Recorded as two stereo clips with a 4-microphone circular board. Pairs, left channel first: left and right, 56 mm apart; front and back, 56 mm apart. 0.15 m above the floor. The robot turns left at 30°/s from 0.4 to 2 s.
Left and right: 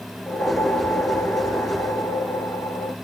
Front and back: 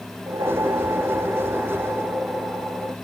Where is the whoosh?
165° left, 0.6 m; by 3.0 s 115° left, 0.6 m.